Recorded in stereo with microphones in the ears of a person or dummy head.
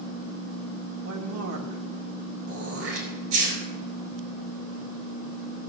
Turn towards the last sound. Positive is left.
turn(degrees=-85)